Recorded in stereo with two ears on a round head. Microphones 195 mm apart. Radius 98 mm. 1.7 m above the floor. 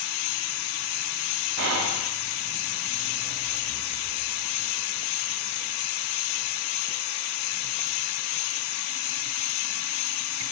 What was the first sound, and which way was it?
Whispering, 55° right (ahead or behind).